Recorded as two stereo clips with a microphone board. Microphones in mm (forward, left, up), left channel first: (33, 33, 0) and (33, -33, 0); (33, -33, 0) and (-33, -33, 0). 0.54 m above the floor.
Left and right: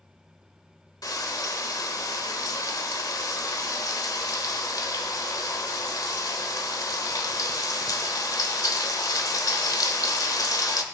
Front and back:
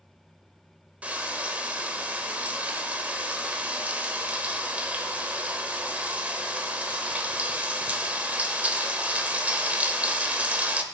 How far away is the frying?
About 1.1 m.